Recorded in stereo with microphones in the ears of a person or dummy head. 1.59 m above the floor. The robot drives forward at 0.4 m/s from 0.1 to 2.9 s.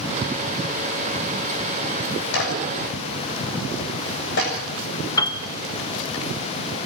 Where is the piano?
20° left (ahead or behind), 1.5 m.